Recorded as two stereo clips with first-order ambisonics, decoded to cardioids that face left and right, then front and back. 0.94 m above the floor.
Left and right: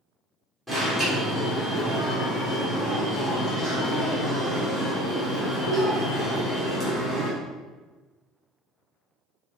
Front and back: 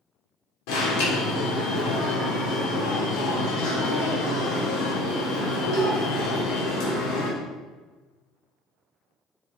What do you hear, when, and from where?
0.7 s an alarm: straight ahead, 3 m